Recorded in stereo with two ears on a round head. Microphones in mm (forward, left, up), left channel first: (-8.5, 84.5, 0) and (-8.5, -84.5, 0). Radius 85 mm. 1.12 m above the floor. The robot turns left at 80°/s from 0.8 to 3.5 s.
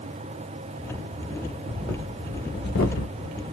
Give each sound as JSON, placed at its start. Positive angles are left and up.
{"t": 1.5, "sound": "breathing", "side_deg": -20, "distance_m": 1.1}